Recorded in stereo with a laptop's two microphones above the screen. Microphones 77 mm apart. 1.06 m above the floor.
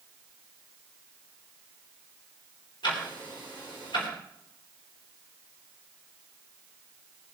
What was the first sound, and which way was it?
Ticking, 85° left.